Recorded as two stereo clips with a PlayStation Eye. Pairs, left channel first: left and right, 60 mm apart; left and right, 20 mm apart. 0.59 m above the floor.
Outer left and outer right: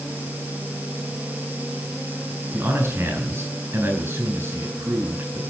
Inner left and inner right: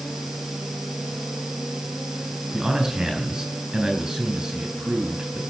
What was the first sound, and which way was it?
A man speaking, 40° right (ahead or behind).